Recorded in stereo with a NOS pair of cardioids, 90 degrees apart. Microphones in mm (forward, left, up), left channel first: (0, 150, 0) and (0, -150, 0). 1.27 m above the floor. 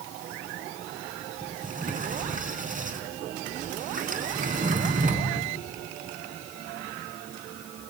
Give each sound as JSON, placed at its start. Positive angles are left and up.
{"t": 1.4, "sound": "a sliding door", "azimuth_deg": -25, "distance_m": 4.0}